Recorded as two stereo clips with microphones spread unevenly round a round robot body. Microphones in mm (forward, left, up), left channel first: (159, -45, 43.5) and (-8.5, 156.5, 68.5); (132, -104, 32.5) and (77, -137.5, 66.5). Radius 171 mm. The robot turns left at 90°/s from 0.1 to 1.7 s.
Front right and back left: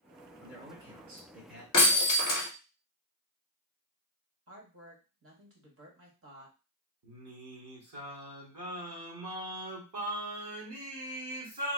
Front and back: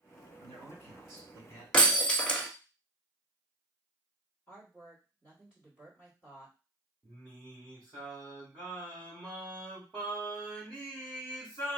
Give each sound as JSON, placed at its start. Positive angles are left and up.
{"t": 0.4, "sound": "a man speaking", "azimuth_deg": -130, "distance_m": 2.0}
{"t": 1.7, "sound": "breaking glass", "azimuth_deg": -115, "distance_m": 0.6}
{"t": 4.5, "sound": "a woman speaking", "azimuth_deg": 105, "distance_m": 1.4}
{"t": 7.0, "sound": "singing", "azimuth_deg": 165, "distance_m": 0.9}